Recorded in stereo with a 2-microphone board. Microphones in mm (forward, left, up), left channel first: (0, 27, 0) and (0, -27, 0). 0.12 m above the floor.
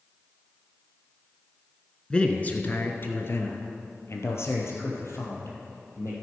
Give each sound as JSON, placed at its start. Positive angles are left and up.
{"t": 2.1, "sound": "a man speaking", "side_deg": 20, "distance_m": 1.1}